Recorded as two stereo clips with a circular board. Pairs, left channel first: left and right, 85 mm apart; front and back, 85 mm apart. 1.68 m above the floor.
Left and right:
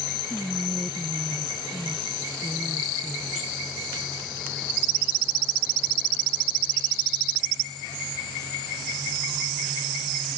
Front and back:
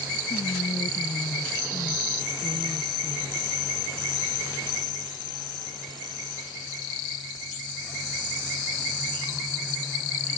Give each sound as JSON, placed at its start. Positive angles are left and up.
{"t": 0.3, "sound": "whispering", "azimuth_deg": 5}